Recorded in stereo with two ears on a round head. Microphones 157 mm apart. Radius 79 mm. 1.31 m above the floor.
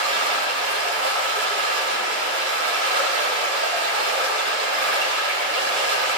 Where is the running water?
75° right (ahead or behind), 9.5 m.